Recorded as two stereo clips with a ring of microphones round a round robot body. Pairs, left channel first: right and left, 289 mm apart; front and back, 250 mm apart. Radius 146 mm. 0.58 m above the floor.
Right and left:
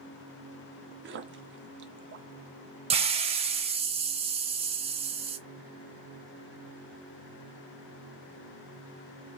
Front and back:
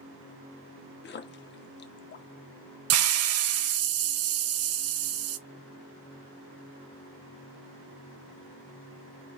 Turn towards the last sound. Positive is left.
turn(degrees=160)